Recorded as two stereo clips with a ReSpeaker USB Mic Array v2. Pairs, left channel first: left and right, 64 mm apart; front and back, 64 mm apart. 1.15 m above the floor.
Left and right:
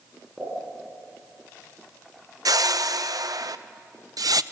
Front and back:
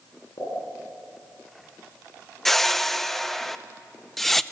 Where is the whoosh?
85° right, 0.5 m.